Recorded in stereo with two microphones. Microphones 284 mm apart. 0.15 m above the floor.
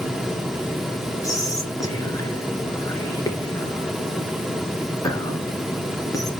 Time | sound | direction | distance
1.2 | whispering | 10° left (ahead or behind) | 2 m